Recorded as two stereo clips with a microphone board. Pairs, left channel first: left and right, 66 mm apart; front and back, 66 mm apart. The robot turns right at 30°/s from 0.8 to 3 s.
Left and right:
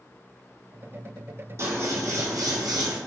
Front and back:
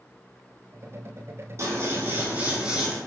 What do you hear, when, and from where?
1.6 s scissors: 140° right, 1.0 m; by 3.0 s 95° right, 1.0 m